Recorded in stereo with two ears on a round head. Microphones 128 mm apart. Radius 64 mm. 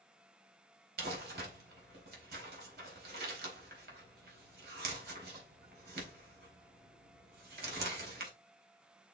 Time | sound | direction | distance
1.0 | crumpling | 75° right (ahead or behind) | 4 m